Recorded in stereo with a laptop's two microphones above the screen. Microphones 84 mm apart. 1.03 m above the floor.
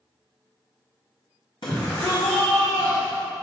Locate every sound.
1.6 s a shout: 65° left (ahead or behind), 1.7 m; by 3.2 s 70° left (ahead or behind), 3 m